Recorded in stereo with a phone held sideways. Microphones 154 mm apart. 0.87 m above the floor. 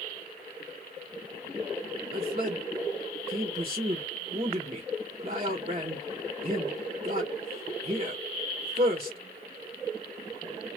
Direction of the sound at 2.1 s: 40° right (ahead or behind).